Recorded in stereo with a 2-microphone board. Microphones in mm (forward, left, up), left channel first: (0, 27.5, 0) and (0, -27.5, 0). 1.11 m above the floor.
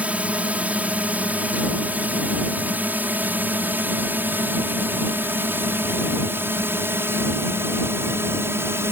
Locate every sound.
0.0 s a drone: 25° right (ahead or behind); by 8.9 s 50° right (ahead or behind)